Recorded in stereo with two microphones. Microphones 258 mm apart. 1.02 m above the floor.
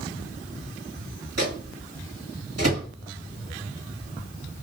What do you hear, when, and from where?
1.4 s a microwave: 70° right (ahead or behind), 1.5 m